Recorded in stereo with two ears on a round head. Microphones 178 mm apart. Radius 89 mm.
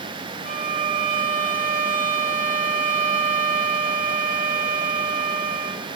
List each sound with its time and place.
0.5 s a violin: 40° right (ahead or behind), 2.0 m